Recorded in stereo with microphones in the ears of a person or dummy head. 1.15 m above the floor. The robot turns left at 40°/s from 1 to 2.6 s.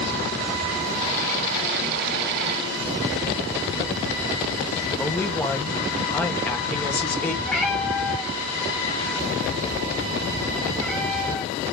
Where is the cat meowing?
5° left (ahead or behind), 1.3 m.